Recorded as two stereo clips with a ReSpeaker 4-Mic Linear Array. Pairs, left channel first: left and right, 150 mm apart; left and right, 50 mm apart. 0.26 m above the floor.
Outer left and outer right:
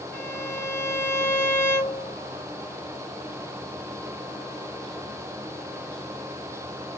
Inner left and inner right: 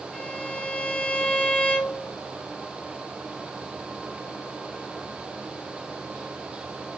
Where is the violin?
20° left (ahead or behind), 1.7 m.